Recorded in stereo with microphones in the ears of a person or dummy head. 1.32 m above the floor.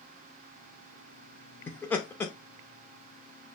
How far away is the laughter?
About 0.7 m.